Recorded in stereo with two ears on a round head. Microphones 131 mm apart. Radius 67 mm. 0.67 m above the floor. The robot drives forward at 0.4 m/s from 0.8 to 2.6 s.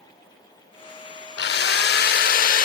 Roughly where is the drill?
Left.